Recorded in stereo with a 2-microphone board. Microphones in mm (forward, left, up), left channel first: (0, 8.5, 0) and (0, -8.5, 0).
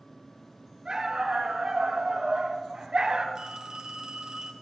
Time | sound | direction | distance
0.8 | a dog barking | 55° right (ahead or behind) | 3 m
3.4 | a phone ringing | 50° right (ahead or behind) | 1.4 m